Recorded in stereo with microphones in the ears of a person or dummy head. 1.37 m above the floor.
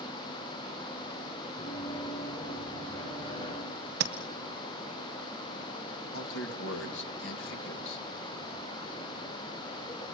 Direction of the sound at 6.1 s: 75° left (ahead or behind).